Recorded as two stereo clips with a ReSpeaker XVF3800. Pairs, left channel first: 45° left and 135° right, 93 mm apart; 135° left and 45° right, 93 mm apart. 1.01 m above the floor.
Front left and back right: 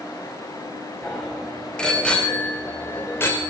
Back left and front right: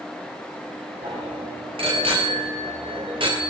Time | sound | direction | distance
1.0 | a bicycle bell | 40° right | 4 m